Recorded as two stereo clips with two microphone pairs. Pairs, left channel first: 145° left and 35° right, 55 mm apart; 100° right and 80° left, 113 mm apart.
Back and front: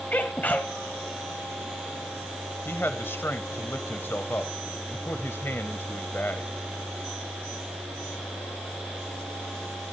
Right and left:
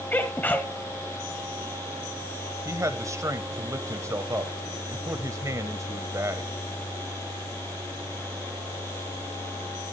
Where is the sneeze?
165° right, 1.4 m.